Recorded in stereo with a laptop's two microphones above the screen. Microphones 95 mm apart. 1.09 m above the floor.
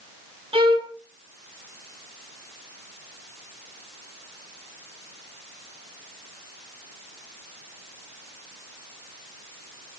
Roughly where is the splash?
No splash in this recording.